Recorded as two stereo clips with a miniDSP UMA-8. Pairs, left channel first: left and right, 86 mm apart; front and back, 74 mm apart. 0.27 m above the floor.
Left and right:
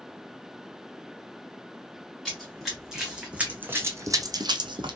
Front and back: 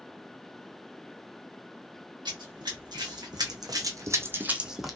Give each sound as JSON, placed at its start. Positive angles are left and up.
{"t": 2.2, "sound": "running footsteps", "azimuth_deg": 180, "distance_m": 1.2}